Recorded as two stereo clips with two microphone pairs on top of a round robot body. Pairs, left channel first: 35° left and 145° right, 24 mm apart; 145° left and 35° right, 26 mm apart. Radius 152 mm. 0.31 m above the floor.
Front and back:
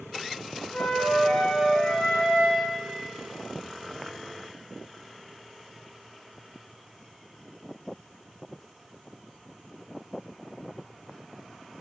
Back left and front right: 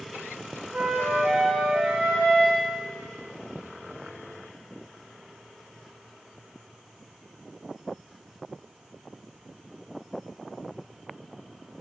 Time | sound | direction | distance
0.7 | a flute | 25° right | 0.6 m